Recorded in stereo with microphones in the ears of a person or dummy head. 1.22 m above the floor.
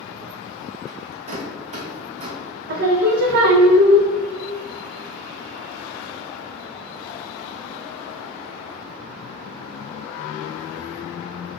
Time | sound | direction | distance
0.9 | a rattle | 35° right (ahead or behind) | 0.6 m
2.7 | singing | 60° right (ahead or behind) | 0.5 m